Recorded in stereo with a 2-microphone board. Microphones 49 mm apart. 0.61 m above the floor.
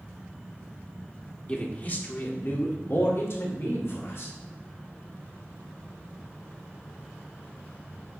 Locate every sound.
1.5 s a man speaking: 30° left (ahead or behind), 1.6 m; by 4.3 s 60° left (ahead or behind), 2.5 m